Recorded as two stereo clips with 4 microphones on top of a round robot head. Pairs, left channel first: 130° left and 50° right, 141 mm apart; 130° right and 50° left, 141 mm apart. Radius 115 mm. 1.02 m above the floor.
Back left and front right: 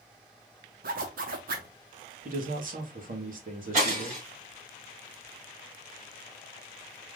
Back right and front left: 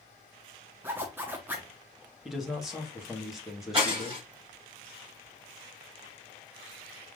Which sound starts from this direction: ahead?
Breaking glass, at 3.7 s.